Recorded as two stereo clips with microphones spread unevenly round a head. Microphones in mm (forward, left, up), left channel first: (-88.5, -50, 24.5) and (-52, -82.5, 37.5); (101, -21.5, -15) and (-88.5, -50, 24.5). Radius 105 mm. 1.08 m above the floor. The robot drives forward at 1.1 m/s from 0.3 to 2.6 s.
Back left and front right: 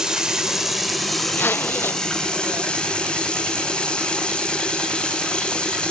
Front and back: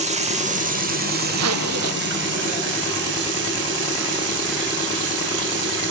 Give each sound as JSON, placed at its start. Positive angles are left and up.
{"t": 0.0, "sound": "running water", "azimuth_deg": -120, "distance_m": 2.5}
{"t": 1.3, "sound": "a zipper", "azimuth_deg": -170, "distance_m": 0.7}